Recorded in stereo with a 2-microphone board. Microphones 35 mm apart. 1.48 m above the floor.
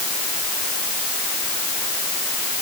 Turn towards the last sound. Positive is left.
No sound to turn to.